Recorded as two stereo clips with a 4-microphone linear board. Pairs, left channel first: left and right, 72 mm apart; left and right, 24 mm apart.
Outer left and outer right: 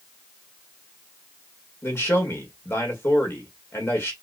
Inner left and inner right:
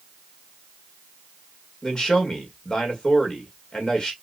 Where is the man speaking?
35° left (ahead or behind), 1.7 m.